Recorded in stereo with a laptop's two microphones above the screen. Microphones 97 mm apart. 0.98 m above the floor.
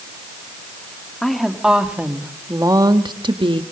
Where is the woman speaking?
5° left (ahead or behind), 1.6 m; by 3.6 s 65° right (ahead or behind), 1.3 m.